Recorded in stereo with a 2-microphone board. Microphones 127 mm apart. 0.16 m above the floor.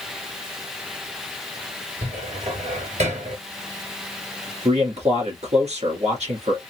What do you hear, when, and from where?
2.0 s a cupboard door: 65° right (ahead or behind), 3 m
4.7 s a man speaking: 60° right (ahead or behind), 2 m